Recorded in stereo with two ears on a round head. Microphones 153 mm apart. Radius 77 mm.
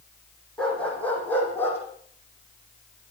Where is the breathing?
I don't hear breathing.